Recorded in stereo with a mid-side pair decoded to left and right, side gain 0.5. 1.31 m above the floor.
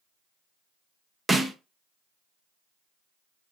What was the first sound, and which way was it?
A snare drum, 20° right.